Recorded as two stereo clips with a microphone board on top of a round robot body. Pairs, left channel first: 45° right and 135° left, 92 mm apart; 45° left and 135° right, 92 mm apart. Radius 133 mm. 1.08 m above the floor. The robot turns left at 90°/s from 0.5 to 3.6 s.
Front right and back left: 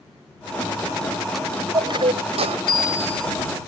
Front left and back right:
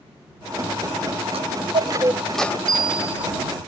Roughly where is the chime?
Behind right.